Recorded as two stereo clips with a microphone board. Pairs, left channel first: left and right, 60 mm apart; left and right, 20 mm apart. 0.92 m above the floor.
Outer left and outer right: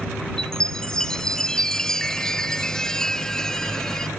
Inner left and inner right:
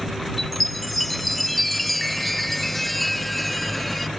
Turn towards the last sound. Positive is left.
turn(degrees=10)  # may be behind; listen again after turning